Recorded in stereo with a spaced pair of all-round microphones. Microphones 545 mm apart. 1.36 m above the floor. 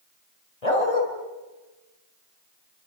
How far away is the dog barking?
About 4 m.